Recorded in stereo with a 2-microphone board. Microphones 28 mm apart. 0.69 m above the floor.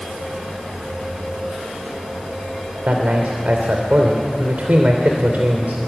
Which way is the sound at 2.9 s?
70° right (ahead or behind).